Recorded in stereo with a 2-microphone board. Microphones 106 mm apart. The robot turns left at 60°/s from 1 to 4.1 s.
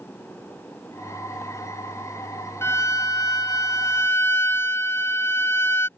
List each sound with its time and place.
2.6 s a violin: 130° left; by 5.9 s 40° left